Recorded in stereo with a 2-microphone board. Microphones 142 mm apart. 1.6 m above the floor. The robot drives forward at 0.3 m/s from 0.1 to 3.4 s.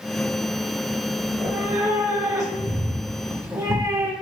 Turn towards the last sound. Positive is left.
turn(degrees=-25)  # may be behind; listen again after turning